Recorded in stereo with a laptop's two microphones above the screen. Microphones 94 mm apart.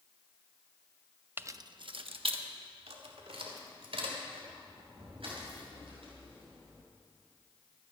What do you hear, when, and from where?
1.4 s keys jangling: 20° right (ahead or behind), 0.6 m; by 6.8 s 80° right, 6 m